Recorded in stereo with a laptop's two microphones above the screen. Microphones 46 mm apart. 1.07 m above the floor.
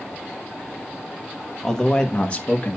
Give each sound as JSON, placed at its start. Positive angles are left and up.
{"t": 1.6, "sound": "a man speaking", "side_deg": 10, "distance_m": 1.3}